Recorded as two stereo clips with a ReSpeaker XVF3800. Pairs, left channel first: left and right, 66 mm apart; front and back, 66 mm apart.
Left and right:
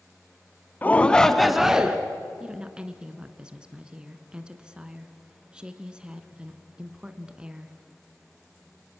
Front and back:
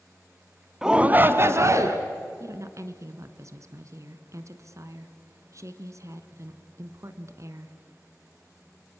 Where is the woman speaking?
165° right, 1.6 m.